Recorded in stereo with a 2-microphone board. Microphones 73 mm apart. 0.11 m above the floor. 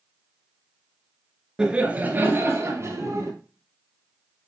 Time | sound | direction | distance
1.6 | laughter | 10° right (ahead or behind) | 1.5 m